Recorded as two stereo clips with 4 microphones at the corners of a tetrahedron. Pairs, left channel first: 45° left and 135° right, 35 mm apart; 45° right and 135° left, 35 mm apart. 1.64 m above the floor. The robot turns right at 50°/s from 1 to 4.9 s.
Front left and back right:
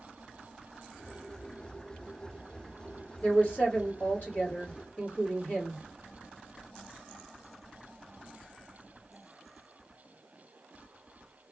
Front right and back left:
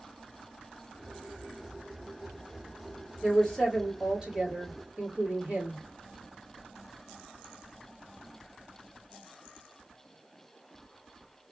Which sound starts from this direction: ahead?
A woman speaking, at 3.2 s.